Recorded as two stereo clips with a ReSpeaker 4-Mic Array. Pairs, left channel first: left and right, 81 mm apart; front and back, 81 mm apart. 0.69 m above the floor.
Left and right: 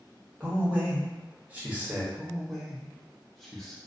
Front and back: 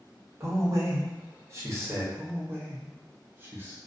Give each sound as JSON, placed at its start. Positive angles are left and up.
{"t": 0.4, "sound": "a man speaking", "azimuth_deg": -155, "distance_m": 0.9}
{"t": 2.1, "sound": "a man speaking", "azimuth_deg": 175, "distance_m": 0.7}